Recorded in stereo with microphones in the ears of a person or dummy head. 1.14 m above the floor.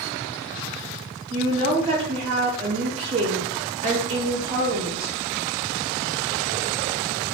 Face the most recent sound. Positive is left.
turn(degrees=-25)  # may be behind; listen again after turning